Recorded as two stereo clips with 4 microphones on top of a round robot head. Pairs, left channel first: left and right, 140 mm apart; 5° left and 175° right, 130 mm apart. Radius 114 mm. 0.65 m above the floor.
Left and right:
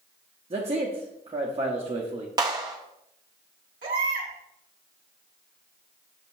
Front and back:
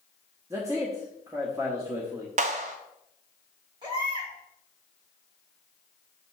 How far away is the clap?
About 0.7 m.